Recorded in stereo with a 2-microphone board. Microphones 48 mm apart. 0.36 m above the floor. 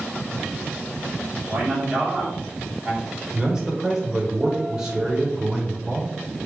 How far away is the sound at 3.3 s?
About 1.1 m.